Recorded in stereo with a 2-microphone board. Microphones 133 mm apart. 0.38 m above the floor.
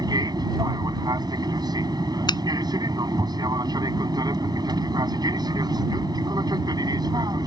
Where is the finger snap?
35° left (ahead or behind).